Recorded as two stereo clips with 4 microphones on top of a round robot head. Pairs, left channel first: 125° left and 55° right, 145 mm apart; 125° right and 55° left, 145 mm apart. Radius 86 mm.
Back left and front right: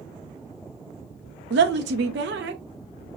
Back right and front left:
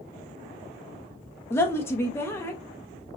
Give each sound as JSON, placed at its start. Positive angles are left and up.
{"t": 1.5, "sound": "a woman speaking", "azimuth_deg": -50, "distance_m": 0.8}